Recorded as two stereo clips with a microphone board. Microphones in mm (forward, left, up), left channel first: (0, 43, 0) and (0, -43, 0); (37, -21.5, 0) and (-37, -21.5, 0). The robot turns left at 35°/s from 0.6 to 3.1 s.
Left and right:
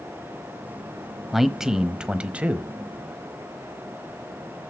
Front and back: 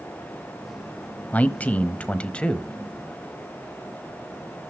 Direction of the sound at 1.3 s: 5° right.